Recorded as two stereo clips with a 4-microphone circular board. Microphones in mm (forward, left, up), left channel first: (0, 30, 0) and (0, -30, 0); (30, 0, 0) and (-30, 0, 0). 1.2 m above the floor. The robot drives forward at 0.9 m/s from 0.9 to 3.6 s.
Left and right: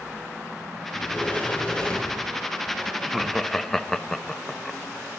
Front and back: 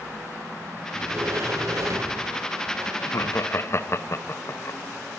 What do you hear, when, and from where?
0.9 s a sliding door: 140° left, 1.1 m; by 2.9 s 170° left, 2.5 m
3.0 s laughter: 5° left, 1.0 m; by 4.8 s 10° left, 0.5 m